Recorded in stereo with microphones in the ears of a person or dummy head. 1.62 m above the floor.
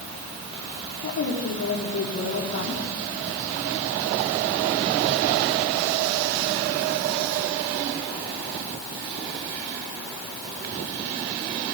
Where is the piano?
No piano in this recording.